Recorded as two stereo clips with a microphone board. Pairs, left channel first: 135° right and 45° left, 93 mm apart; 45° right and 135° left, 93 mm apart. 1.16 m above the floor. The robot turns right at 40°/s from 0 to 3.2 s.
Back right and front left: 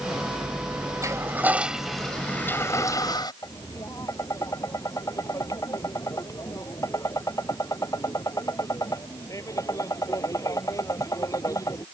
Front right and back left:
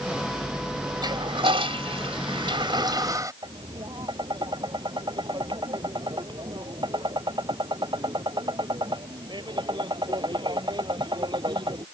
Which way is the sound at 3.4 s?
170° left.